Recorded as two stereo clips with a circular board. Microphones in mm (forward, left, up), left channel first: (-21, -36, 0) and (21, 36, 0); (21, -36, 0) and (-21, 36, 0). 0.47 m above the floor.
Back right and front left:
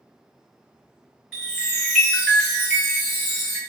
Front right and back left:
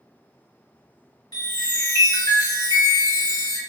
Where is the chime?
30° right, 1.2 m.